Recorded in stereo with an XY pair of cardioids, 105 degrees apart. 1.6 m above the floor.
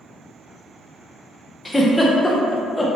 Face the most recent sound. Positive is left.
turn(degrees=10)